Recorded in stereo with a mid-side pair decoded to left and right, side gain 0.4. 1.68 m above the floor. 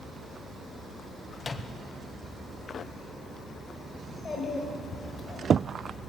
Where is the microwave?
40° left, 0.9 m.